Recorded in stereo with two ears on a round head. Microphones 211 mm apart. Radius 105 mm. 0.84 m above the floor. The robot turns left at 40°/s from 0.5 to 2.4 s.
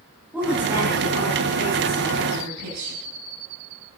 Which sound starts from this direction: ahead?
A woman speaking, at 0.3 s.